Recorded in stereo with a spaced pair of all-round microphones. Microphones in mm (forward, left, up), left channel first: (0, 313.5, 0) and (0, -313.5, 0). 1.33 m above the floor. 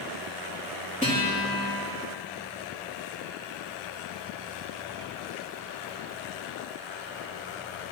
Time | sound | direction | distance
1.0 | a guitar | 10° left (ahead or behind) | 3 m